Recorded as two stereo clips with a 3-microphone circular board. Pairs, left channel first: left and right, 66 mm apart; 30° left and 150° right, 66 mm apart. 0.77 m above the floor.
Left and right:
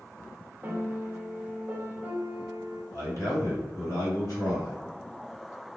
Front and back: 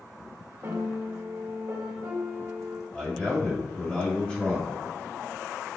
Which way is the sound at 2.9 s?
100° left.